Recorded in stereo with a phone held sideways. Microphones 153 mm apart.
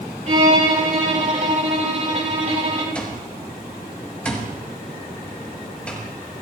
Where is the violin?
50° right (ahead or behind), 4 m.